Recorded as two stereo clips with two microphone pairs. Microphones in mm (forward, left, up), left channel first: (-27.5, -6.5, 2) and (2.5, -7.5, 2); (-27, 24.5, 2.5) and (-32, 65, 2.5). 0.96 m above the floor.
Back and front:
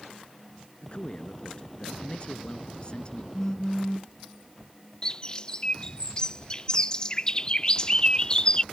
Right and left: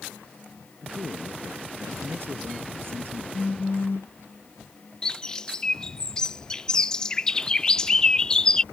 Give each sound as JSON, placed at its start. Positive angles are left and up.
{"t": 0.8, "sound": "a man speaking", "azimuth_deg": 125}
{"t": 3.3, "sound": "a phone buzzing", "azimuth_deg": -110}
{"t": 5.0, "sound": "a bird", "azimuth_deg": -155}